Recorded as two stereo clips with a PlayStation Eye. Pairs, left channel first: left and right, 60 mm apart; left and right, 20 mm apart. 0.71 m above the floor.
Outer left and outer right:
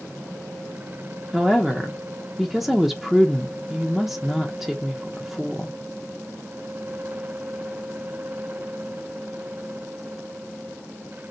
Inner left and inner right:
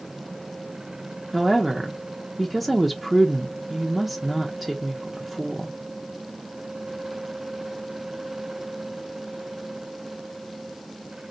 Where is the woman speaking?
5° right (ahead or behind), 0.6 m.